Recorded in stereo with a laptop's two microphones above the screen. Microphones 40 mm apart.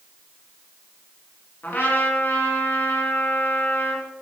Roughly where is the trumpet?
Left.